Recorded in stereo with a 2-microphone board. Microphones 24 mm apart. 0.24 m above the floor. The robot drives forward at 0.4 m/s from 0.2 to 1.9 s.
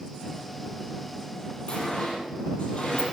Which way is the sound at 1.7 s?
50° left (ahead or behind).